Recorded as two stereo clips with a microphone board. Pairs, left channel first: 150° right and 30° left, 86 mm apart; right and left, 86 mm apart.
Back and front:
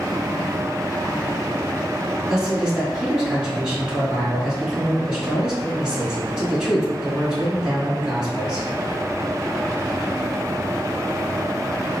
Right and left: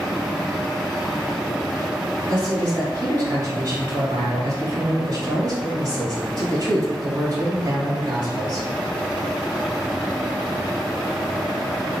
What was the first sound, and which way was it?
A man speaking, 105° left.